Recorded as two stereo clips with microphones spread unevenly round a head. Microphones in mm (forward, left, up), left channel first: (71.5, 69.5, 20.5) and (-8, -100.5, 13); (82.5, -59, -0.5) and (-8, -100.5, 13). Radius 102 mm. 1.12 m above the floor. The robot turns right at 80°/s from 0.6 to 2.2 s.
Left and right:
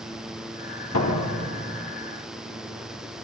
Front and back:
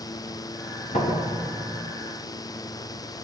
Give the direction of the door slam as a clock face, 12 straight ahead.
10 o'clock.